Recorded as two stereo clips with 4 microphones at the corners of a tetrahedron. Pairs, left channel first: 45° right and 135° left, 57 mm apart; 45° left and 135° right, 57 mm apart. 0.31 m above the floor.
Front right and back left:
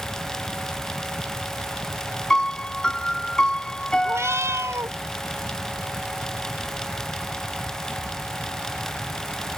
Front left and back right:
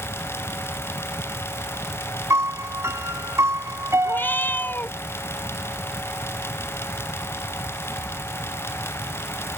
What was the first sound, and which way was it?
A piano, 120° right.